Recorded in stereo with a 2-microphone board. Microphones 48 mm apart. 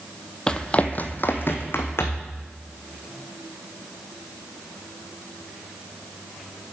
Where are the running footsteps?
15° left (ahead or behind), 0.6 m; by 2.3 s 60° left (ahead or behind), 1.6 m.